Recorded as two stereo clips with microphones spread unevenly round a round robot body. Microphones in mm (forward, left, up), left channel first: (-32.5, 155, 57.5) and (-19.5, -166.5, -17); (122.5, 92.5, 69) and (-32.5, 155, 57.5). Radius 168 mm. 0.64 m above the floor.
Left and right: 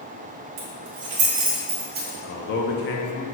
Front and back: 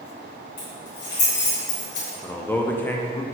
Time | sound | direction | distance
0.6 | keys jangling | 60° right | 1.4 m
2.2 | a man speaking | 55° left | 0.5 m